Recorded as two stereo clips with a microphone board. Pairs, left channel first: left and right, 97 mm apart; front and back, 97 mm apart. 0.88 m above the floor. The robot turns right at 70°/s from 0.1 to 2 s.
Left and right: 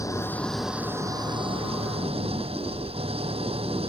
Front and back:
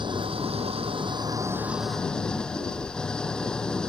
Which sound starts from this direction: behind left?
An engine running, at 0.0 s.